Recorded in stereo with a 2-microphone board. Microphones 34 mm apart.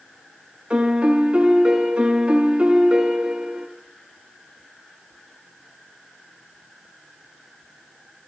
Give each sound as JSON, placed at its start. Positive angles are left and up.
{"t": 0.7, "sound": "a piano", "side_deg": -35, "distance_m": 1.5}